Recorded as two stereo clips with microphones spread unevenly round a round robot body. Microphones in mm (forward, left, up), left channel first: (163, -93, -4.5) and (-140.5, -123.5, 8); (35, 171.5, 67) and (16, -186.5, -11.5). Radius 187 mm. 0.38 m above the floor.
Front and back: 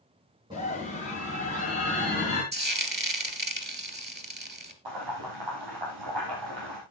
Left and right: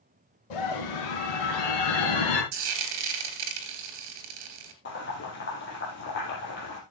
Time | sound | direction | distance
0.5 | a scream | 105° left | 4 m
2.5 | frying | 115° right | 3 m
4.8 | boiling | 150° left | 4.5 m